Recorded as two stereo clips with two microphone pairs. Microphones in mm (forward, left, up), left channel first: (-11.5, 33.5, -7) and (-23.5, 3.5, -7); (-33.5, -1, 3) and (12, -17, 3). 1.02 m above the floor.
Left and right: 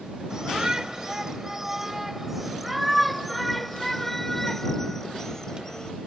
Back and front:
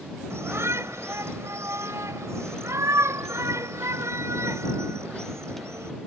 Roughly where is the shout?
Ahead right.